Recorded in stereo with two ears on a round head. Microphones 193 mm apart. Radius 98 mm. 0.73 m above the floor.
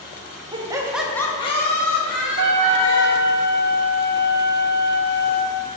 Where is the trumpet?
85° right, 1.0 m.